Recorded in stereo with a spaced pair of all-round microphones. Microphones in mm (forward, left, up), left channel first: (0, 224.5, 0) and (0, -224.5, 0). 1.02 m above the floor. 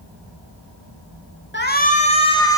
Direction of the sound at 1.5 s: 25° left (ahead or behind).